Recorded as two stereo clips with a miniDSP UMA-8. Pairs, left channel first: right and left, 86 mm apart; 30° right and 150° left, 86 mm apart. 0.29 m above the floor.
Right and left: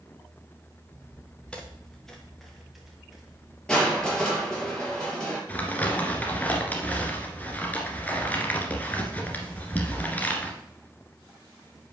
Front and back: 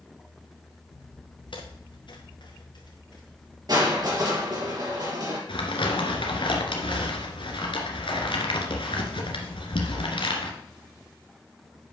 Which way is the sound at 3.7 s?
170° right.